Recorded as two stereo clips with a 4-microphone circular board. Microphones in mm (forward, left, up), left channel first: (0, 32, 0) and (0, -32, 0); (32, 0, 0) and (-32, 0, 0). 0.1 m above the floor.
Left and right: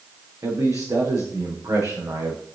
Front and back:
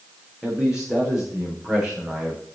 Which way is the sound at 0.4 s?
95° right.